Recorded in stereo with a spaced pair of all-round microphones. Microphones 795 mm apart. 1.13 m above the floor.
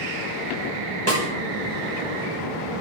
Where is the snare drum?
20° right (ahead or behind), 5.5 m.